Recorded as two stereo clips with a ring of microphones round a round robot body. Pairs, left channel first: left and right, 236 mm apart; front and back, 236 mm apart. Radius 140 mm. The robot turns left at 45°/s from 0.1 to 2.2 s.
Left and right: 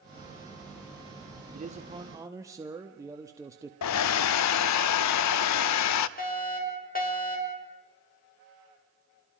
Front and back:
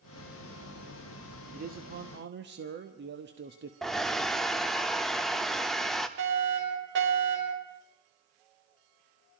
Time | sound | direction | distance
1.5 | a man speaking | 135° right | 1.2 m
3.8 | a hair dryer | 90° left | 0.6 m
6.2 | a fire alarm | 140° left | 5.5 m